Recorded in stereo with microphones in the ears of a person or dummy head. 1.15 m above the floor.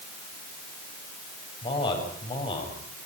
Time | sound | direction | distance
1.6 | a man speaking | 30° left (ahead or behind) | 8 m